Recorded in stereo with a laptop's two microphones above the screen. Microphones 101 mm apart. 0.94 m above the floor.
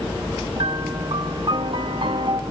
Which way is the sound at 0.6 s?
60° right (ahead or behind).